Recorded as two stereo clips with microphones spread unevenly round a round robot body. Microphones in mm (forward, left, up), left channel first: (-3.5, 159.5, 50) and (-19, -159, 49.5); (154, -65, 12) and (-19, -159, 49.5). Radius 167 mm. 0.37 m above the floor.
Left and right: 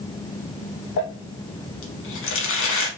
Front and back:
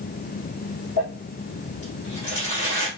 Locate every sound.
1.0 s crumpling: 140° left, 0.8 m